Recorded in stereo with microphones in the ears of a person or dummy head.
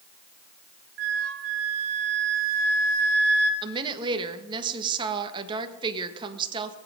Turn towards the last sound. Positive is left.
turn(degrees=-25)  # may be behind; listen again after turning